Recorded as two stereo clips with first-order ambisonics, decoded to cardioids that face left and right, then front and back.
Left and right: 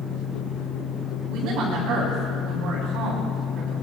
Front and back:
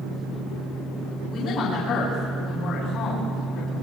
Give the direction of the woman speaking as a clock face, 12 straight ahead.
2 o'clock.